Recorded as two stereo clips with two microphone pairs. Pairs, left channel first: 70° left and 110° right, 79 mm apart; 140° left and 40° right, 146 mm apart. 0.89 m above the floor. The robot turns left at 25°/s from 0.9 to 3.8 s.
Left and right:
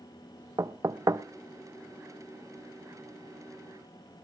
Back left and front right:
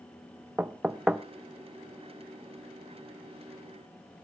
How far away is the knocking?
About 0.5 m.